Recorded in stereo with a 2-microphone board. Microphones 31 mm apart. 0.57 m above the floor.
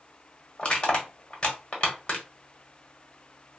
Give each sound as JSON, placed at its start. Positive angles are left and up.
{"t": 0.6, "sound": "crushing", "side_deg": 35, "distance_m": 1.2}